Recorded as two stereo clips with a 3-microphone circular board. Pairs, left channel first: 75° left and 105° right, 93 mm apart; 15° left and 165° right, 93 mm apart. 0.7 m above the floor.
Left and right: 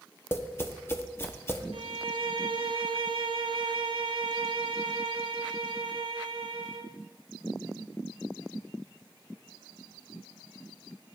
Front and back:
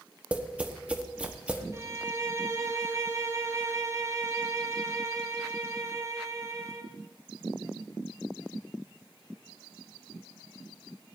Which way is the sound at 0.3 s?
125° left.